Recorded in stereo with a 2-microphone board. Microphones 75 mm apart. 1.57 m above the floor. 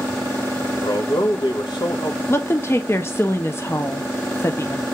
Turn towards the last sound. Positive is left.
turn(degrees=35)  # may be behind; listen again after turning